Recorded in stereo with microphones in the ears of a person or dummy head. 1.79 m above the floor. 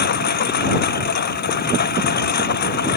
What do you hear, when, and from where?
0.0 s a lawn mower: 50° left (ahead or behind)